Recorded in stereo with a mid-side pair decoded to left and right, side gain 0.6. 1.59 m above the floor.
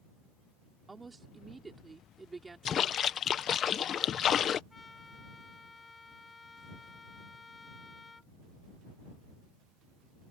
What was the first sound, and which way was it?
A woman speaking, 20° right.